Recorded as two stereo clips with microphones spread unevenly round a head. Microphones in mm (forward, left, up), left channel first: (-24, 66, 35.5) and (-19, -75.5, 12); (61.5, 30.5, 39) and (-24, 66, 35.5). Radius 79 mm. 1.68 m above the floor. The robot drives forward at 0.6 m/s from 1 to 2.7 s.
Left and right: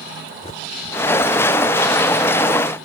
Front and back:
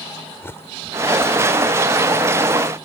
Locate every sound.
0.4 s a bird: 40° left; by 2.1 s 50° left